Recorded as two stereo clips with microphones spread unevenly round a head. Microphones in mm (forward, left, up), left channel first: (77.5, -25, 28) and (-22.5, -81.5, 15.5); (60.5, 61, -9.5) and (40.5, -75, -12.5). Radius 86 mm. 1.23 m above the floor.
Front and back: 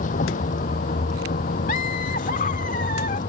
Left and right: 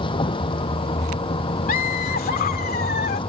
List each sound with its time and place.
0.0 s a vehicle: 30° left
1.7 s laughter: 70° left